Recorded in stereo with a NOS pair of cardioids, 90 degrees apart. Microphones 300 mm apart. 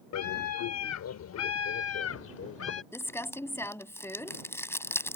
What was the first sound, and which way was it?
A scream, 70° left.